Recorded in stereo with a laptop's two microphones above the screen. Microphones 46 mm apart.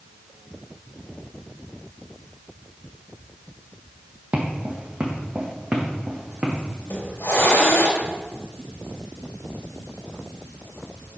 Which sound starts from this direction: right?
Footsteps, at 4.3 s.